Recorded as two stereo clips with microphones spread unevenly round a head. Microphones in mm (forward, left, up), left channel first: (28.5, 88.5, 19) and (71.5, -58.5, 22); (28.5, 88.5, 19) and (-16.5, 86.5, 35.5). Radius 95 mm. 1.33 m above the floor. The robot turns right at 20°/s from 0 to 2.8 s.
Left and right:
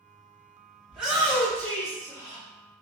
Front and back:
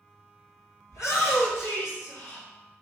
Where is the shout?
10° left, 1.2 m; by 2.5 s 40° left, 1.2 m.